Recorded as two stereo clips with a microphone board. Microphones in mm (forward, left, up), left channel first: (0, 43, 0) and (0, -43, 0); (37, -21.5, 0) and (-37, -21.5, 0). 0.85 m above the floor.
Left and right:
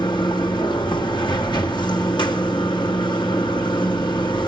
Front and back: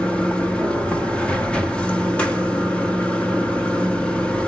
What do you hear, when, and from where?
0.0 s running water: 75° left, 1.3 m